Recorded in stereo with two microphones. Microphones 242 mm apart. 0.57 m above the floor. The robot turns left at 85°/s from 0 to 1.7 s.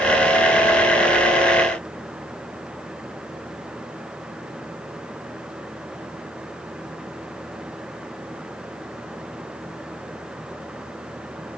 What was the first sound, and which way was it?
Only background noise.